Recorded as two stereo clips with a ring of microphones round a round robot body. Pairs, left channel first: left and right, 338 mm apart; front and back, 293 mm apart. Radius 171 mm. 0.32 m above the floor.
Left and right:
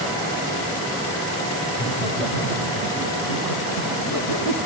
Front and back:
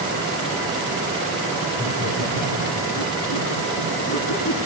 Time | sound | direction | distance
1.7 | laughter | 45° right | 5 m